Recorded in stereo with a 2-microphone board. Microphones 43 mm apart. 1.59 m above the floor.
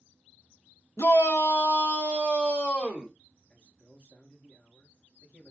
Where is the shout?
75° left (ahead or behind), 1.0 m; by 3.1 s 25° left (ahead or behind), 1.5 m.